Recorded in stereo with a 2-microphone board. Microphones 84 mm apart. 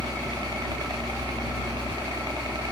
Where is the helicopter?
60° right (ahead or behind); by 2.7 s 65° right (ahead or behind).